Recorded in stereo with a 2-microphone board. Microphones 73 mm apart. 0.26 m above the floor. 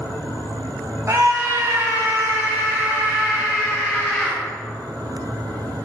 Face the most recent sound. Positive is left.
turn(degrees=-20)  # may be behind; listen again after turning